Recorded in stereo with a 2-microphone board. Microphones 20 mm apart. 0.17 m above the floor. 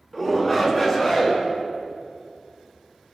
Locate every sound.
0.1 s a shout: 10° left (ahead or behind), 2 m; by 1.4 s 20° left (ahead or behind), 1.9 m